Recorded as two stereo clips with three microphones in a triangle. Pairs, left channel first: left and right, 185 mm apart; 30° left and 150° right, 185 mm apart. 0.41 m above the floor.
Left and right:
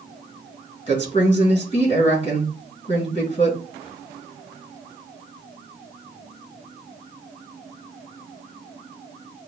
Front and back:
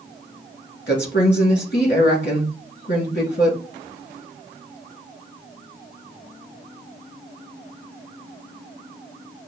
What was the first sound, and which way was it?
A woman speaking, 45° left.